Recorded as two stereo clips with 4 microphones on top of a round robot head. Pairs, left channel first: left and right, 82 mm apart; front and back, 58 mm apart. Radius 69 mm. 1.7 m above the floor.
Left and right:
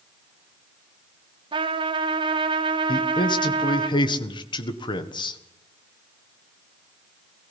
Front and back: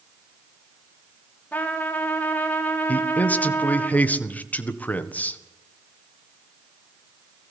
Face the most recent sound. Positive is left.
turn(degrees=65)